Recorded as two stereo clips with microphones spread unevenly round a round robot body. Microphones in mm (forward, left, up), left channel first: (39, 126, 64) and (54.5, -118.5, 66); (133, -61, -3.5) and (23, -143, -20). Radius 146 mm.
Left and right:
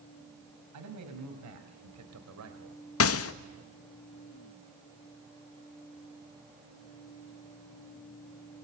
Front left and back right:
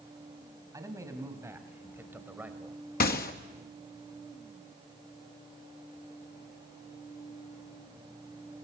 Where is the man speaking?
75° right, 5.5 m; by 2.8 s 60° right, 3.5 m.